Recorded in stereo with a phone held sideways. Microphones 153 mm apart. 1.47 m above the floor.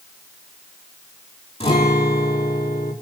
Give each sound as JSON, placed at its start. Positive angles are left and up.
{"t": 1.6, "sound": "a guitar", "side_deg": 40, "distance_m": 5.0}